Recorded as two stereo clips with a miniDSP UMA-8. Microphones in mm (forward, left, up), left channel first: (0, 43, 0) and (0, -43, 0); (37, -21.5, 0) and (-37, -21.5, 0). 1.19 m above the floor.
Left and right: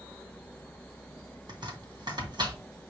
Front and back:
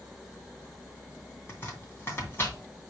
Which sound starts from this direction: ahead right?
Chopping, at 1.5 s.